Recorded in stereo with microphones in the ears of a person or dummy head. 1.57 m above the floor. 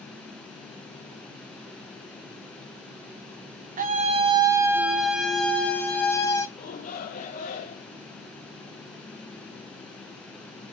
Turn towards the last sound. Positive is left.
turn(degrees=45)  # may be behind; listen again after turning